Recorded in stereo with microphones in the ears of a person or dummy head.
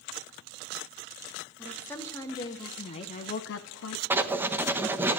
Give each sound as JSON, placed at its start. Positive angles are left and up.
{"t": 1.6, "sound": "a woman speaking", "side_deg": 10, "distance_m": 2.5}
{"t": 4.1, "sound": "writing", "side_deg": -10, "distance_m": 1.1}